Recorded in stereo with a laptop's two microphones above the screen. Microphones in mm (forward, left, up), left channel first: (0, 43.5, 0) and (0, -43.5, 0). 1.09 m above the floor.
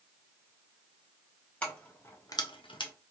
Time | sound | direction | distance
1.6 | keys jangling | 15° left (ahead or behind) | 1.5 m